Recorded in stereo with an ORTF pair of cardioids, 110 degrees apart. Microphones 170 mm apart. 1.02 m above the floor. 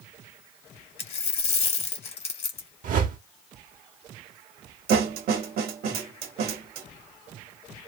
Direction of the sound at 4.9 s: 65° right.